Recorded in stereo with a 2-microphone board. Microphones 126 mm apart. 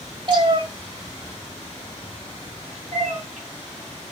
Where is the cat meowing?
40° right (ahead or behind), 1.4 m; by 4.1 s 70° right (ahead or behind), 3 m.